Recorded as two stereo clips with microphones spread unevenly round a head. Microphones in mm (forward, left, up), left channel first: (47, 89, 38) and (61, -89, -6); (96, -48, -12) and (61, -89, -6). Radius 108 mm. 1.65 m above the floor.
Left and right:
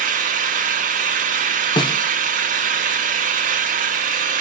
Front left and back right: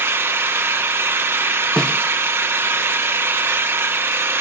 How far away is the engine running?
About 0.9 m.